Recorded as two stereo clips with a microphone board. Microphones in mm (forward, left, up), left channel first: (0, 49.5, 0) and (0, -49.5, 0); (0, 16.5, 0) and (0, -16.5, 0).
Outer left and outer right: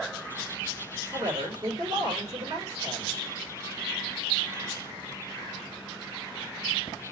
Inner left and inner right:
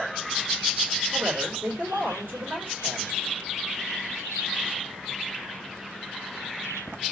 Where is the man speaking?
45° right (ahead or behind), 1.8 m.